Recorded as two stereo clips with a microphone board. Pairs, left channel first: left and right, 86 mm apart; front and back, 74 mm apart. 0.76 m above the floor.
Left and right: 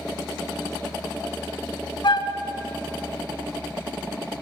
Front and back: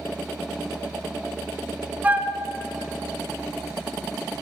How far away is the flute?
About 0.5 m.